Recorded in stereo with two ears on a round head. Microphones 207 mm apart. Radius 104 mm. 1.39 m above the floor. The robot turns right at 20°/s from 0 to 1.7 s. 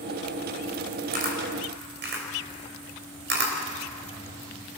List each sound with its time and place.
1.1 s a camera shutter: 40° right (ahead or behind), 4 m; by 3.6 s 50° right (ahead or behind), 4 m